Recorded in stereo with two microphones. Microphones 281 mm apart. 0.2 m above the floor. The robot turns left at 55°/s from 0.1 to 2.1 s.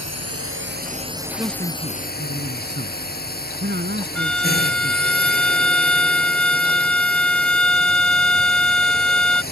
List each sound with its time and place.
0.0 s a drone: 105° right; by 9.5 s 145° left
1.4 s a man speaking: 15° right; by 5.1 s 55° right
4.2 s a violin: 5° left (ahead or behind)